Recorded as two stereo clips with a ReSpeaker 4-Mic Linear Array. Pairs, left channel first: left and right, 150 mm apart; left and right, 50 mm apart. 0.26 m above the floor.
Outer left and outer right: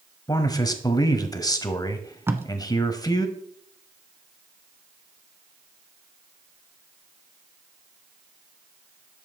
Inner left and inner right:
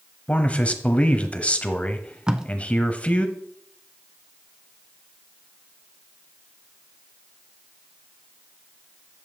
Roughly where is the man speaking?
Left.